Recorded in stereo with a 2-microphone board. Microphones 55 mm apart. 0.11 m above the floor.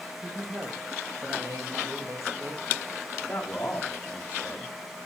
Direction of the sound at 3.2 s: 35° left (ahead or behind).